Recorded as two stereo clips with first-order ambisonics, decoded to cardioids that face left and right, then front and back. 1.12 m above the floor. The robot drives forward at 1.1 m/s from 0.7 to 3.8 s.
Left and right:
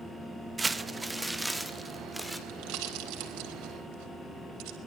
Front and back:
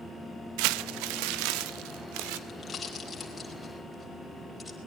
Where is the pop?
70° right, 4.5 m; by 4.8 s 90° right, 4 m.